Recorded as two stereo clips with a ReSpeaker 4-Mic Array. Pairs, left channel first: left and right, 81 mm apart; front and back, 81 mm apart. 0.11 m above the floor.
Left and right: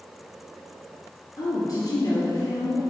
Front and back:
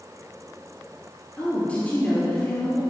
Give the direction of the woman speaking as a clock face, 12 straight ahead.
10 o'clock.